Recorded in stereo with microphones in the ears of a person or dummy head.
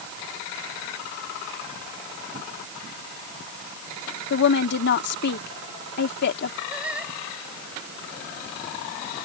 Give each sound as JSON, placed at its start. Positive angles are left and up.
{"t": 4.3, "sound": "a woman speaking", "side_deg": 60}
{"t": 6.7, "sound": "singing", "side_deg": -5}